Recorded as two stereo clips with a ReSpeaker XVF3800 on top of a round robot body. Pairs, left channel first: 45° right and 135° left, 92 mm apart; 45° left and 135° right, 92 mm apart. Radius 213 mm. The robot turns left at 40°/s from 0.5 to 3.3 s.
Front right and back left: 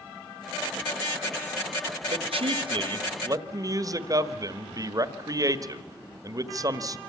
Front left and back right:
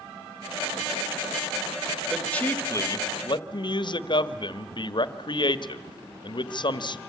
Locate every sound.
2.1 s a man speaking: 135° left, 1.5 m; by 7.0 s 85° left, 1.5 m